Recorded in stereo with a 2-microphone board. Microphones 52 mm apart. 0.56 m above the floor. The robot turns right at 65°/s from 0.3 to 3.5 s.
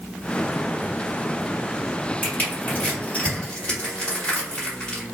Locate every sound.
2.2 s crushing: 35° left (ahead or behind), 1.6 m; by 5.0 s 20° left (ahead or behind), 1.6 m